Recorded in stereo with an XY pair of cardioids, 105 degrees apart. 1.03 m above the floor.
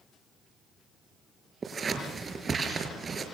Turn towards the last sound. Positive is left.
turn(degrees=-35)